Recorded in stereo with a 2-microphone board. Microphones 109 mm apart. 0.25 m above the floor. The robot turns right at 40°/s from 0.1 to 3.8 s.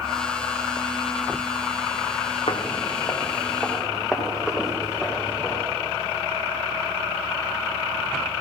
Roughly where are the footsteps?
Left.